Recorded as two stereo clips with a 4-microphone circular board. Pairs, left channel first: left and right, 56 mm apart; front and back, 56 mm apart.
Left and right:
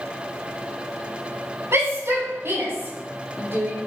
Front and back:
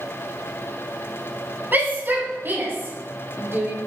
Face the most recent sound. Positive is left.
turn(degrees=-135)